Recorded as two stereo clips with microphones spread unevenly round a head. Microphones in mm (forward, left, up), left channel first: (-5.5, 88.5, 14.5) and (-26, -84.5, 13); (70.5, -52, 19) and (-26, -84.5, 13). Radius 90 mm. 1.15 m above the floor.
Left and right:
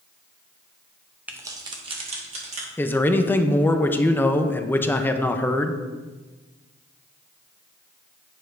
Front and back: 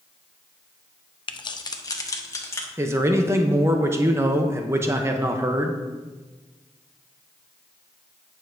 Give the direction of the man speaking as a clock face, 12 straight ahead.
7 o'clock.